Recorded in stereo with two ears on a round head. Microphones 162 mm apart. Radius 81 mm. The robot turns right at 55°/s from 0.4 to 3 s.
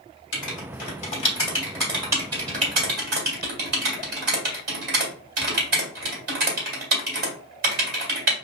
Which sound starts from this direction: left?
Writing, at 0.3 s.